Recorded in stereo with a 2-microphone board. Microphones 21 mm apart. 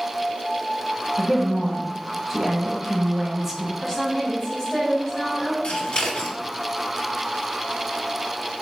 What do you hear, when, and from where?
1.2 s a woman speaking: centre (ahead or behind), 0.9 m
3.8 s a woman speaking: 20° left (ahead or behind), 1.1 m
5.6 s scissors: 55° left (ahead or behind), 0.6 m